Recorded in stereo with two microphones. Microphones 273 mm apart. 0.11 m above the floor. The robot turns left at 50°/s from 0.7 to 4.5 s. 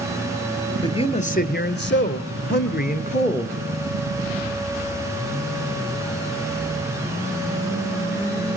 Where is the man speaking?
160° left, 1.4 m; by 3.5 s 20° left, 1.4 m.